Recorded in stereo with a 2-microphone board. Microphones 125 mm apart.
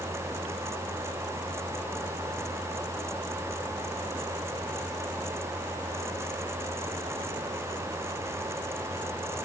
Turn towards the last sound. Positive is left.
No sound to turn to.